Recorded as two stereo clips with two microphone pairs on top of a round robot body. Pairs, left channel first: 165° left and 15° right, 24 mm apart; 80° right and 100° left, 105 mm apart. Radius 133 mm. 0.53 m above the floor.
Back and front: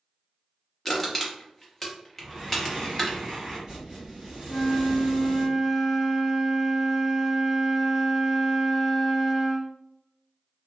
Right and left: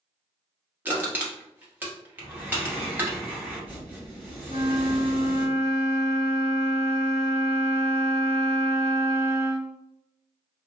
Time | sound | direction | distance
0.8 | crushing | 130° left | 1.2 m
2.2 | breathing | 30° left | 1.5 m
4.5 | a flute | 120° left | 1.4 m